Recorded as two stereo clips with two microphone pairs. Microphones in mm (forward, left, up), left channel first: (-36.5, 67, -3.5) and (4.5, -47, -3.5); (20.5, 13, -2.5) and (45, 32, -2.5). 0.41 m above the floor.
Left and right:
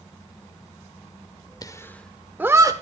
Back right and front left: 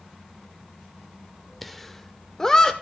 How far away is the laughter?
About 1.1 m.